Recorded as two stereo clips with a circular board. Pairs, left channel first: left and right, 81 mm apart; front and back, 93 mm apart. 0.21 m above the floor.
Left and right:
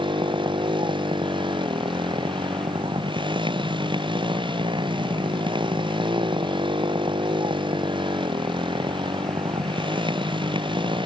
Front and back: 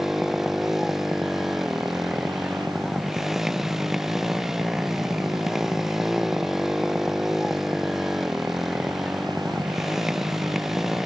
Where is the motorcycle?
95° right.